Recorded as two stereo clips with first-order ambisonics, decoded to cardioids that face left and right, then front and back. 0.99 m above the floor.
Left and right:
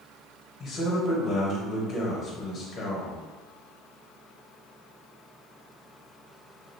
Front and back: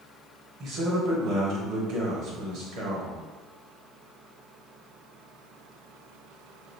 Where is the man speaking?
150° left, 1.1 m.